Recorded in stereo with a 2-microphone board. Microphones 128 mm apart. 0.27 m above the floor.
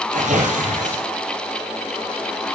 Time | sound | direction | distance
0.1 | tearing paper | 75° right (ahead or behind) | 4 m